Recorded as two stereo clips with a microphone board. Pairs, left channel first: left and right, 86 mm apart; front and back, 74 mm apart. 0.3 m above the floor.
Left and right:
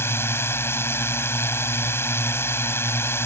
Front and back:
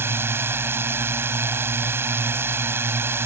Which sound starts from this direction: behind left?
A drone, at 0.0 s.